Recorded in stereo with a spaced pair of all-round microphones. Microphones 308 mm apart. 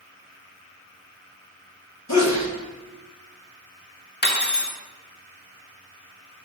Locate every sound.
2.1 s a sneeze: 60° left (ahead or behind), 1.2 m
4.2 s cutlery clinking: 35° left (ahead or behind), 0.7 m